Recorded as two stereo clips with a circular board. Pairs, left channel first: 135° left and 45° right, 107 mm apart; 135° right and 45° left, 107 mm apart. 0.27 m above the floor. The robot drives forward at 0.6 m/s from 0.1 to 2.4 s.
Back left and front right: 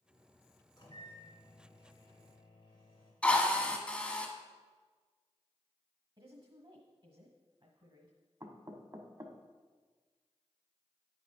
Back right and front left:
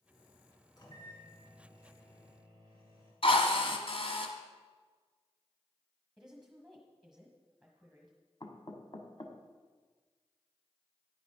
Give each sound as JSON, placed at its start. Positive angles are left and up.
{"t": 0.8, "sound": "a microwave", "azimuth_deg": 180, "distance_m": 2.0}
{"t": 3.2, "sound": "a drill", "azimuth_deg": -150, "distance_m": 1.2}
{"t": 6.2, "sound": "a woman speaking", "azimuth_deg": -40, "distance_m": 1.3}
{"t": 8.4, "sound": "knocking", "azimuth_deg": -100, "distance_m": 1.1}